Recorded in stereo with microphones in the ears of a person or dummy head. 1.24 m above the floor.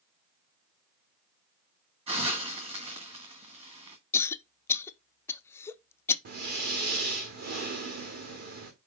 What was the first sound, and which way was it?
A hiss, 30° right (ahead or behind).